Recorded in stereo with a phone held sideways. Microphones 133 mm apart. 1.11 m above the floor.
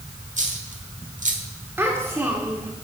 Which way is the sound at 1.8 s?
15° right (ahead or behind).